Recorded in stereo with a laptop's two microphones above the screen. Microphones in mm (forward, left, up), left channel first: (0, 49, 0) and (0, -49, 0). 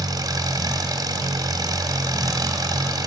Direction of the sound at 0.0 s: 40° right (ahead or behind).